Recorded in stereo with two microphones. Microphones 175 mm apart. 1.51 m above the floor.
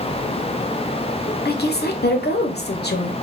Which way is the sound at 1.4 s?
75° left (ahead or behind).